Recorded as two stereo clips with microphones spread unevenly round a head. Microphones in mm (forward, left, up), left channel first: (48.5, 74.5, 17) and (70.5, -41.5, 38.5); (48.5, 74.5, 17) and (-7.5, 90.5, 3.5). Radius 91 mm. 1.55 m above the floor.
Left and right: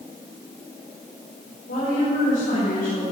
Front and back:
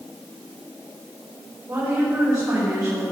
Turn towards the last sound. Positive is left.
turn(degrees=125)